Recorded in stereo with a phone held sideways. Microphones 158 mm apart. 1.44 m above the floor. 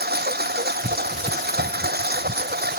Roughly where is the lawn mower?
Right.